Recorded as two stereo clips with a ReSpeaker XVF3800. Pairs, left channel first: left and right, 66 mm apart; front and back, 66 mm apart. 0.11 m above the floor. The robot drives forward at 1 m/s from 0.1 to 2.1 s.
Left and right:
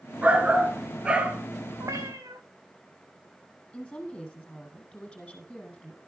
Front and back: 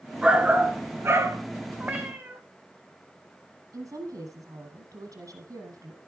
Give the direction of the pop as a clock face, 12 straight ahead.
I don't hear a pop.